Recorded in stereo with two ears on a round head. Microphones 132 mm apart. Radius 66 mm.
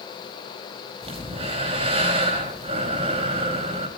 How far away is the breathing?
About 5 m.